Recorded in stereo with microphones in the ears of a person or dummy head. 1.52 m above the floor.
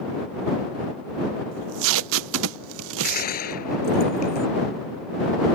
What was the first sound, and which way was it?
Tape being pulled, 70° right (ahead or behind).